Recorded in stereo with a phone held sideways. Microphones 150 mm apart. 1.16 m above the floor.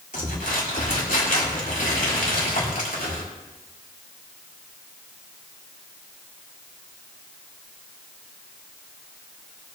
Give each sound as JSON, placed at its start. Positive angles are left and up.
{"t": 0.1, "sound": "crumpling", "side_deg": 65, "distance_m": 4.0}